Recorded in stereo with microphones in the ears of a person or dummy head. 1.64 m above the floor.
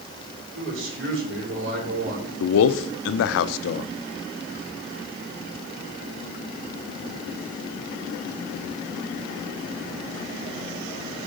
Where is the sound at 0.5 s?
80° right, 4 m.